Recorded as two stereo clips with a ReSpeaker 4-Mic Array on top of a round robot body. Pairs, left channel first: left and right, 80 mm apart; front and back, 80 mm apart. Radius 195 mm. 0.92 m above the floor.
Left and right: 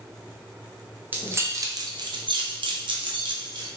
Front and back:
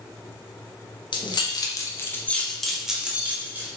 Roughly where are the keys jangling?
Ahead right.